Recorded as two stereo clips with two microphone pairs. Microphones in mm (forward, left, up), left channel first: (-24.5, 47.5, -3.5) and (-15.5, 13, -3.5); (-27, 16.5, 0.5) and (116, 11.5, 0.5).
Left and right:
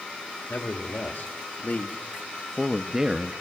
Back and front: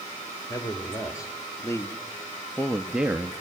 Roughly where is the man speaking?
Behind left.